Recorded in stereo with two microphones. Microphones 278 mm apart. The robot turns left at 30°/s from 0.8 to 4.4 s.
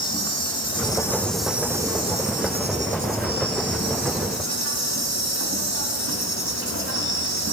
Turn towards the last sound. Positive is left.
turn(degrees=-90)